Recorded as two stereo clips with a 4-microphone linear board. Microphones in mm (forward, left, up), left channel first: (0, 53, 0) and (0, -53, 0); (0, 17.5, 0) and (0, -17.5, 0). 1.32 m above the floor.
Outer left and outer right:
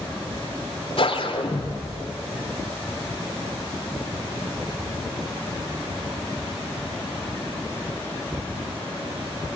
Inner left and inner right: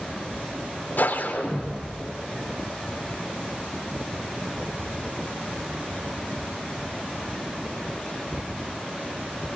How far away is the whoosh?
About 3 m.